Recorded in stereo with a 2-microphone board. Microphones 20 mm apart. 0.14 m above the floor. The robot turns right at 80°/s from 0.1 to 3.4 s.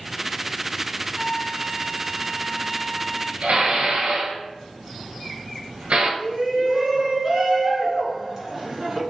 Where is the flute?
140° left, 1.7 m; by 3.3 s 50° right, 1.7 m.